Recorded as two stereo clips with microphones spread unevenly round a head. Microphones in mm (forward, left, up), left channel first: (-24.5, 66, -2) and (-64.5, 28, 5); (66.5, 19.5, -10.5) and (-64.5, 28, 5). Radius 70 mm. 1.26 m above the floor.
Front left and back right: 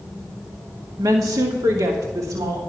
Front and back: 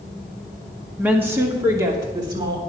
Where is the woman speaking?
105° right, 1.6 m; by 2.6 s 120° right, 3 m.